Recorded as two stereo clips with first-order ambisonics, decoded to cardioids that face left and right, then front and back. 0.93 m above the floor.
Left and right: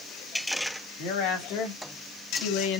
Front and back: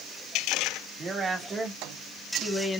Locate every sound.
1.0 s a woman speaking: 110° left, 2.5 m; by 2.8 s 80° left, 1.6 m